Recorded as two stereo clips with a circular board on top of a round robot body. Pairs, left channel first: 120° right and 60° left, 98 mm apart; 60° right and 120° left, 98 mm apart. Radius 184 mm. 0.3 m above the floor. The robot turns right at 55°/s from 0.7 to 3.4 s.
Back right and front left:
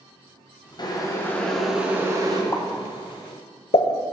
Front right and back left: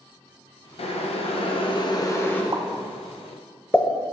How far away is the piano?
I don't hear a piano.